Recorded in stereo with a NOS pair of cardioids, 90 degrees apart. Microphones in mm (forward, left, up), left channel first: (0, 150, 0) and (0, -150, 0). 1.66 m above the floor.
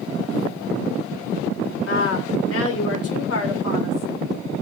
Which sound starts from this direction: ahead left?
A woman speaking, at 1.9 s.